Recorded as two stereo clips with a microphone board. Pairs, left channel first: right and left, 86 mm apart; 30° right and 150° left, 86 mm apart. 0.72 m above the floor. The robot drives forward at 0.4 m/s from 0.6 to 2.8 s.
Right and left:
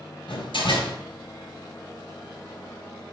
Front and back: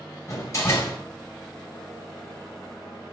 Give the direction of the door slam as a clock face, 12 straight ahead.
3 o'clock.